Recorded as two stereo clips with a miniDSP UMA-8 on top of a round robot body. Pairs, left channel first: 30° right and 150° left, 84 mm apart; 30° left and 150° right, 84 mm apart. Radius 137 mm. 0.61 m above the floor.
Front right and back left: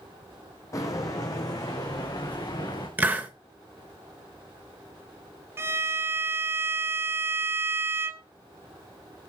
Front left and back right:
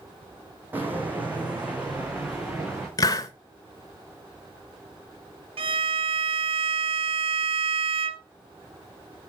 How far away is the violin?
About 0.9 m.